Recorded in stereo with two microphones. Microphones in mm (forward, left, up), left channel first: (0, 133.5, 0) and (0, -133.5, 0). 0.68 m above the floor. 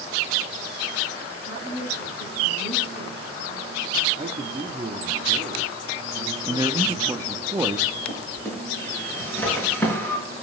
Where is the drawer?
10° left (ahead or behind), 5.5 m.